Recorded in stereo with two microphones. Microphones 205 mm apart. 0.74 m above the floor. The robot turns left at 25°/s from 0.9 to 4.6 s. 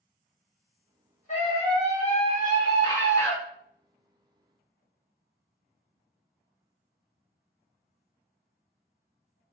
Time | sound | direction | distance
1.3 | a scream | 75° left | 1.2 m